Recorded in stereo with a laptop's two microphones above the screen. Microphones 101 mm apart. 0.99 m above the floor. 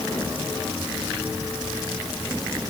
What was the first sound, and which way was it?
Only background noise.